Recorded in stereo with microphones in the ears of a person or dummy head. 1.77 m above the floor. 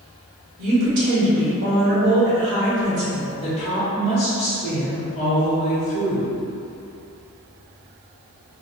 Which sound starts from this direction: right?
A woman speaking, at 0.6 s.